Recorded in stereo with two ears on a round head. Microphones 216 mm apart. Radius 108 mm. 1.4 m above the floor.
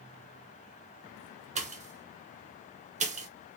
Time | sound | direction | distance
1.6 | a pop | 30° right (ahead or behind) | 0.6 m